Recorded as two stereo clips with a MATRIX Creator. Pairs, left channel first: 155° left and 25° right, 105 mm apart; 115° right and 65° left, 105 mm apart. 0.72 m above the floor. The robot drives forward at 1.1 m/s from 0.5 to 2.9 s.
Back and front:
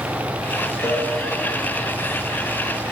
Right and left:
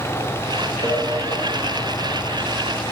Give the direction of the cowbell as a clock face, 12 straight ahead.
12 o'clock.